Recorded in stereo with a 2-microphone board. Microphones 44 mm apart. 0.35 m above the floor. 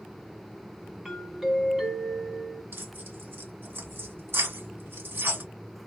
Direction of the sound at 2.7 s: 65° right (ahead or behind).